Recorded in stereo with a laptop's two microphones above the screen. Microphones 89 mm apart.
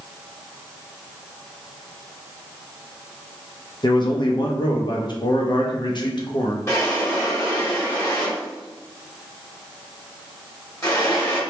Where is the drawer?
35° left (ahead or behind), 1.7 m.